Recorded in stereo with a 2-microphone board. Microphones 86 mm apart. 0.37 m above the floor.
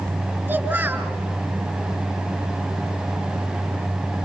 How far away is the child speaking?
About 3.5 m.